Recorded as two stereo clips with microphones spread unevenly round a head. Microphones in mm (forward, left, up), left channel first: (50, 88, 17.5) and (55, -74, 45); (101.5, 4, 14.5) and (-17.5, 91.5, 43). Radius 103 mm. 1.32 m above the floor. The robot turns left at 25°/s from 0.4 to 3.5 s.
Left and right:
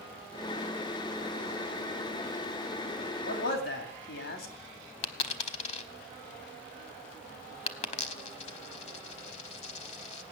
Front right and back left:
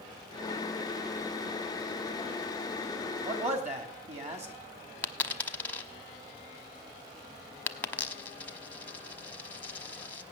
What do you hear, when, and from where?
3.2 s a man speaking: 105° left, 2.5 m; by 4.5 s 100° left, 2.5 m
5.0 s a dropped coin: 50° left, 1.0 m